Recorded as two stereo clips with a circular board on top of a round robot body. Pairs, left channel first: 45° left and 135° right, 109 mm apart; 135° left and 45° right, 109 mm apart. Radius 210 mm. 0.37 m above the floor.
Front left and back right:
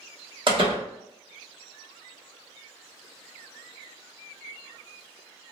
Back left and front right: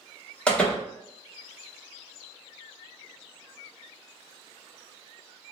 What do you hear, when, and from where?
0.5 s a door slam: 150° right, 1.3 m